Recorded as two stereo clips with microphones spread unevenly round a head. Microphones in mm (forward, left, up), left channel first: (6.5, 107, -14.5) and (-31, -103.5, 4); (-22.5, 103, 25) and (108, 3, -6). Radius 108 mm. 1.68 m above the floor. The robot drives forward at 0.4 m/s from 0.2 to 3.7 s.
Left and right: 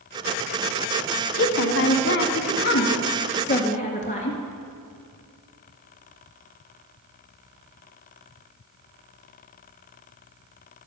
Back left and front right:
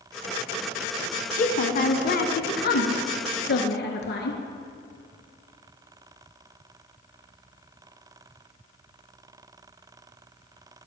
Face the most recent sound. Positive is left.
turn(degrees=140)